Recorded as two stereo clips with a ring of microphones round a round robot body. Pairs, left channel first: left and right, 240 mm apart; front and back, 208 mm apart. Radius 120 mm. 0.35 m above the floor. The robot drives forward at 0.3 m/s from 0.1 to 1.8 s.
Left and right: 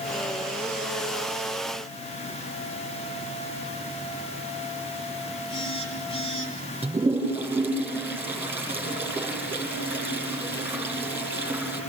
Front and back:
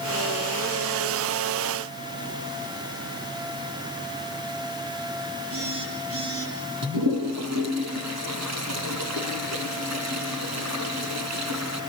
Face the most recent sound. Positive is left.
turn(degrees=-170)